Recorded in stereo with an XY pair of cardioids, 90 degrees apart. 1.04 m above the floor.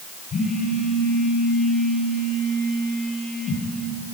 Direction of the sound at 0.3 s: 60° left.